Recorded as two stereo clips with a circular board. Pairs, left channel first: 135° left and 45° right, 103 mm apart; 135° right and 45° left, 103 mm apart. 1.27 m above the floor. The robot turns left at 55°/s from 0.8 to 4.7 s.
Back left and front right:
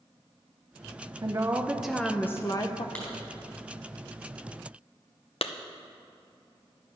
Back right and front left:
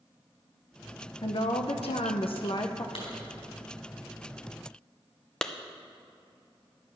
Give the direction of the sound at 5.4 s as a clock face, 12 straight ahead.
7 o'clock.